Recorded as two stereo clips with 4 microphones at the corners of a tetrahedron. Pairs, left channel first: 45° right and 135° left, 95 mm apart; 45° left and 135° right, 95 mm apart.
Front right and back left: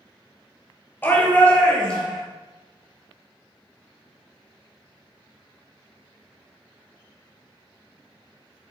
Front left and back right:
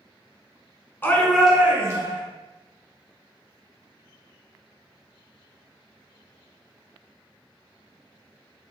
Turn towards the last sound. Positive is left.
turn(degrees=-125)